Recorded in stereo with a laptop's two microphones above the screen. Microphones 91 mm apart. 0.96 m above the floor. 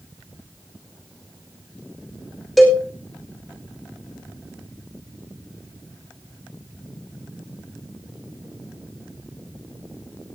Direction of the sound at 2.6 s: Centre (ahead or behind).